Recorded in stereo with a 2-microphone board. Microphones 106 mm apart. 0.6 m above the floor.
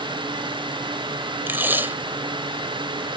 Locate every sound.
1.5 s tape being pulled: 20° right (ahead or behind)